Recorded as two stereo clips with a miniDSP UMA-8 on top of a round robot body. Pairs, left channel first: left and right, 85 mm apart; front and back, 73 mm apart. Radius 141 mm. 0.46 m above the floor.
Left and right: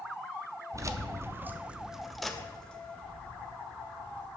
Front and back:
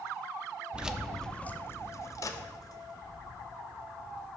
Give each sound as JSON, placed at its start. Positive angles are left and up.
{"t": 0.7, "sound": "keys jangling", "azimuth_deg": -110, "distance_m": 0.7}